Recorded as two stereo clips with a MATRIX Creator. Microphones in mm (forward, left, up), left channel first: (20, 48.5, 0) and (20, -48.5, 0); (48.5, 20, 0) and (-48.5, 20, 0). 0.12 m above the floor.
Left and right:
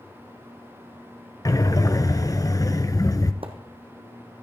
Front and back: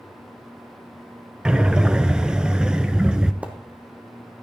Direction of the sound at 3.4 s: 105° right.